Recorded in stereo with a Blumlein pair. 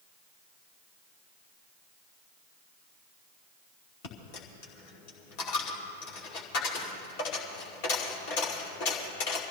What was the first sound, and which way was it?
A dropped coin, 45° left.